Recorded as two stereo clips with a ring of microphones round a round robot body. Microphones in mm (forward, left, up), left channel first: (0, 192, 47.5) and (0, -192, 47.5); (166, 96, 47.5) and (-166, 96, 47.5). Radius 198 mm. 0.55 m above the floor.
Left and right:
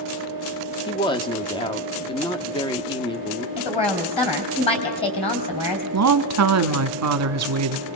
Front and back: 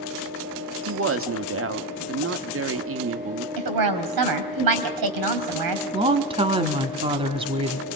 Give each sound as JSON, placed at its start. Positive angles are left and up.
{"t": 0.9, "sound": "a woman speaking", "azimuth_deg": 160, "distance_m": 1.2}
{"t": 3.6, "sound": "a woman speaking", "azimuth_deg": 165, "distance_m": 3.5}
{"t": 5.9, "sound": "a woman speaking", "azimuth_deg": -110, "distance_m": 1.2}